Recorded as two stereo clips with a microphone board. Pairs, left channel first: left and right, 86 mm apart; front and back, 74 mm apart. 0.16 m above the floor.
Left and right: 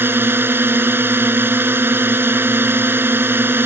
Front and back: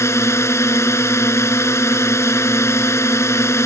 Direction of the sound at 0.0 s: 35° right.